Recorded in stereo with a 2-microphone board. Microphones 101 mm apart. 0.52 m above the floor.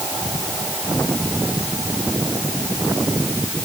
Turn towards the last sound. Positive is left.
No sound to turn to.